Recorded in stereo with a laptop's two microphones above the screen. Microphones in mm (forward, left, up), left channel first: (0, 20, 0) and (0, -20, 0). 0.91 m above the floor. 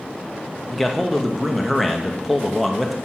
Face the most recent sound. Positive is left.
turn(degrees=0)  # may be behind; listen again after turning